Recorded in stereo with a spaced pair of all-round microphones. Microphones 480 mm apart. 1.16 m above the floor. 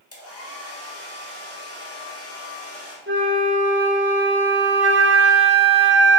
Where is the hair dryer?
30° left (ahead or behind), 1.7 m.